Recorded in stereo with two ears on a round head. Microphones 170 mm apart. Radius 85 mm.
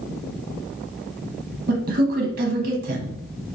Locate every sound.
1.7 s a man speaking: 50° right (ahead or behind), 0.6 m